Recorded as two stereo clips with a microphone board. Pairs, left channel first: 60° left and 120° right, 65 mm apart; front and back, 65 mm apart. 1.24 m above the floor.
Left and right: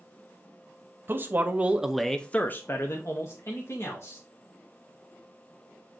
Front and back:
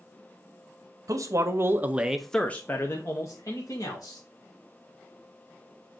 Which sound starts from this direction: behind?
A man speaking, at 1.1 s.